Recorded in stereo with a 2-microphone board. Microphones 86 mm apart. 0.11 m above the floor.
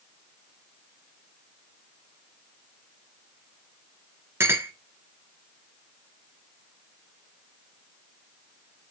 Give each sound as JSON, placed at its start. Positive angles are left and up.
{"t": 4.4, "sound": "a clink", "side_deg": -30, "distance_m": 0.8}